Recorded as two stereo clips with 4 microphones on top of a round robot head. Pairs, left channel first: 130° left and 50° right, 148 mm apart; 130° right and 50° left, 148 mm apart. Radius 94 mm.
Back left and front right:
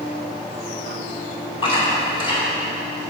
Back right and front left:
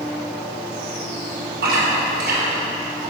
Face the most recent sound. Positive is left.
turn(degrees=70)